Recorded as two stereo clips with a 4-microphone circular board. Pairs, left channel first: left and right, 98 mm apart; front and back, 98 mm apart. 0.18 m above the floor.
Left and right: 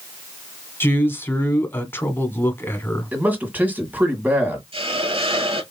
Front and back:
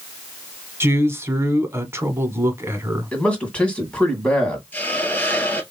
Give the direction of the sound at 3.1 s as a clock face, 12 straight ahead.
2 o'clock.